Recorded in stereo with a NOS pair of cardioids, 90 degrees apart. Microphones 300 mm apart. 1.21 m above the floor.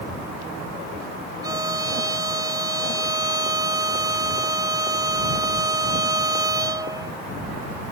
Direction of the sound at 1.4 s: 10° right.